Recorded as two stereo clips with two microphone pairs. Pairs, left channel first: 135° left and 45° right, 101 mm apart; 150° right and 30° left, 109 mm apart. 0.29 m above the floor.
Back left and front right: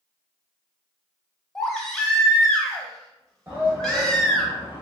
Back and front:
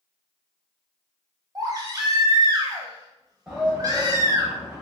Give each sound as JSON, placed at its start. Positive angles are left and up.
{"t": 1.6, "sound": "a baby crying", "azimuth_deg": 60, "distance_m": 0.6}
{"t": 3.5, "sound": "a shout", "azimuth_deg": -55, "distance_m": 1.0}